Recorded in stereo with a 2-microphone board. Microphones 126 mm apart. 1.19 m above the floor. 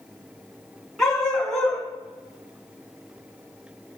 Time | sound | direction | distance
1.0 | a dog barking | 5° left (ahead or behind) | 4.5 m